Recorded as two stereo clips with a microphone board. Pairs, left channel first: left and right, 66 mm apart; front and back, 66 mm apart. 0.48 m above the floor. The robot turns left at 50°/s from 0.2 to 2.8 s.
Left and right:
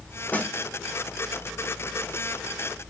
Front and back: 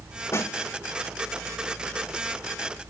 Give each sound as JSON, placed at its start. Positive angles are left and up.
{"t": 0.3, "sound": "a snare drum", "azimuth_deg": 35, "distance_m": 1.0}